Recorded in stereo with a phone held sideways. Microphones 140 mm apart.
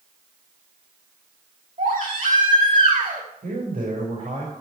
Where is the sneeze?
No sneeze in this recording.